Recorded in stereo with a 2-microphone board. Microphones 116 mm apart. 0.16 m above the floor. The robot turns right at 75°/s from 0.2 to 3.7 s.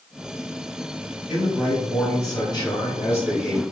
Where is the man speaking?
15° right, 1.5 m; by 3.6 s 160° left, 1.5 m.